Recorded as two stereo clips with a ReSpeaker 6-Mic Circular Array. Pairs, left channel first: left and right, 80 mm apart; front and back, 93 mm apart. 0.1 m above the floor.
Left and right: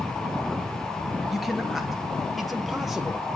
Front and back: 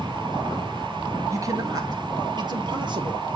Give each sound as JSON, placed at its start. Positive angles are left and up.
{"t": 1.3, "sound": "a man speaking", "azimuth_deg": 180, "distance_m": 1.3}